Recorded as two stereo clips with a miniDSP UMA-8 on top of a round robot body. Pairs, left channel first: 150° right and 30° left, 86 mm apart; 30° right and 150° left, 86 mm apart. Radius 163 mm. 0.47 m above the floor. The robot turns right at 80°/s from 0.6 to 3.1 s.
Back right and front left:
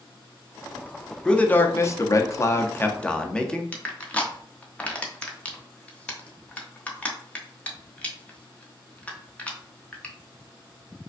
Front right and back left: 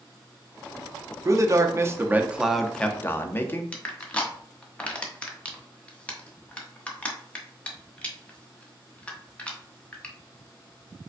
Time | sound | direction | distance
1.2 | a man speaking | 135° left | 0.8 m
3.7 | crushing | 90° right | 1.1 m